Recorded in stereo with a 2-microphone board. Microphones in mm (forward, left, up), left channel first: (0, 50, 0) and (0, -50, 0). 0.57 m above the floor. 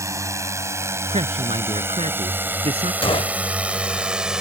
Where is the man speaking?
80° right.